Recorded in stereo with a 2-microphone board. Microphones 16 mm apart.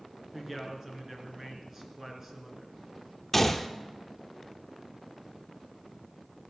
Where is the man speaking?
20° right (ahead or behind), 3 m.